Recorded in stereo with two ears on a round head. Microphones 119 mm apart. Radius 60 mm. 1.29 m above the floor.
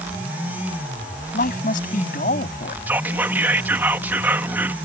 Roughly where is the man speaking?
Left.